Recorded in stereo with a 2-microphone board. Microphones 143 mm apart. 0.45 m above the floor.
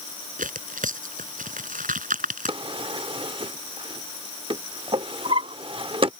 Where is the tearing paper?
70° right (ahead or behind).